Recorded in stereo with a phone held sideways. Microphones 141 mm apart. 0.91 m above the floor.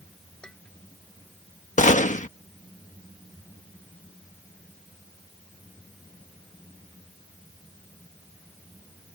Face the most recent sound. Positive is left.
turn(degrees=60)  # may be behind; listen again after turning